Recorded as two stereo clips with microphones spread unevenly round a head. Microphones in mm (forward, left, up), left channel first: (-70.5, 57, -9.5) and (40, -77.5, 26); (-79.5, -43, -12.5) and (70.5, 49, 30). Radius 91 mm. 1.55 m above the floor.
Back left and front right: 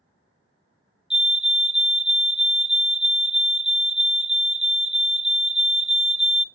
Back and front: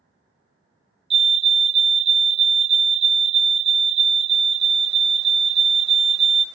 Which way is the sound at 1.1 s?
65° left.